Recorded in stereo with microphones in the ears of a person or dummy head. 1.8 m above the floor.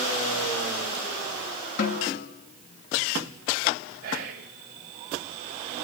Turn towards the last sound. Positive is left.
turn(degrees=-50)  # may be behind; listen again after turning